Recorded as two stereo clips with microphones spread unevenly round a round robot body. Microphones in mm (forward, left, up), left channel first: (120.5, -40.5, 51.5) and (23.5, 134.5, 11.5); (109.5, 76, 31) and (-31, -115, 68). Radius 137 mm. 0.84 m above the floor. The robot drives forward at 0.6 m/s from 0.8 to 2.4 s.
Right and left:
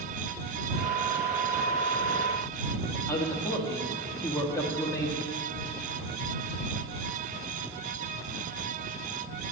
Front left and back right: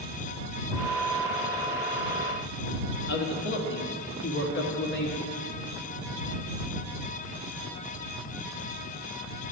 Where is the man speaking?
20° left, 1.2 m.